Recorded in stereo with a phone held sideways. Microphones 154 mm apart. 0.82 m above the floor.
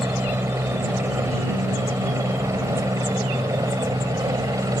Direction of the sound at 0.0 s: 15° right (ahead or behind).